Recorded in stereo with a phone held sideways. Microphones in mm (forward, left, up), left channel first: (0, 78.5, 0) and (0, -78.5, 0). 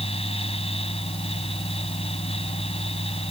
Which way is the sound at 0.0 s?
40° left (ahead or behind).